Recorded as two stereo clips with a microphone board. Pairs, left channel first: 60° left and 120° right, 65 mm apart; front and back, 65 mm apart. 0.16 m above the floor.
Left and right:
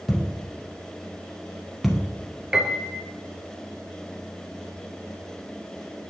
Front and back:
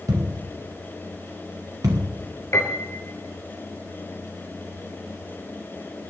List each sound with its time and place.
0.1 s a thud: 150° left, 2.5 m
2.5 s a piano: 40° right, 2 m